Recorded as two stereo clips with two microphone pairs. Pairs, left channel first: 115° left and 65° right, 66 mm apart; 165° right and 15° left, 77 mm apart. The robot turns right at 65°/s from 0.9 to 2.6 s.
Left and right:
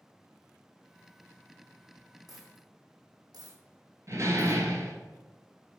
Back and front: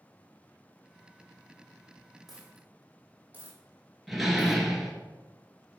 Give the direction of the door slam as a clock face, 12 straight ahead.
2 o'clock.